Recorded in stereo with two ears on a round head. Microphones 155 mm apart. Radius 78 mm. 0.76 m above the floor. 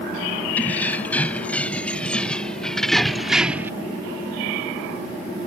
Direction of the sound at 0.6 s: 10° left (ahead or behind).